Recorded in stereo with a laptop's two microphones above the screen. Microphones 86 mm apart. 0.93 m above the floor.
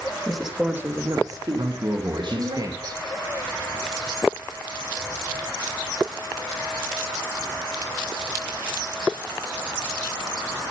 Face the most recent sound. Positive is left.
turn(degrees=-45)  # may be behind; listen again after turning